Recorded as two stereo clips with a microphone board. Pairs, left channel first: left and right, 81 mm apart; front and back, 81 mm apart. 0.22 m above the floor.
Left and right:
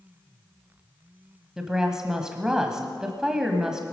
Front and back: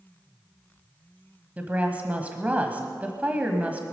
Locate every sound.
1.6 s a woman speaking: 155° right, 1.3 m